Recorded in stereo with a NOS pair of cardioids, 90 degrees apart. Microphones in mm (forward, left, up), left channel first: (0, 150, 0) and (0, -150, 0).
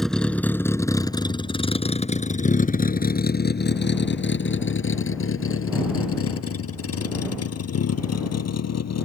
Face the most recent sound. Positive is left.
turn(degrees=55)